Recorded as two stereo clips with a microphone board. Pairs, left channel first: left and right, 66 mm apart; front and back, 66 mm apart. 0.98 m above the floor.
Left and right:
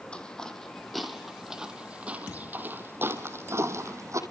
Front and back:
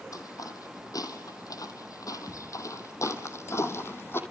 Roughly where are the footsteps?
Ahead.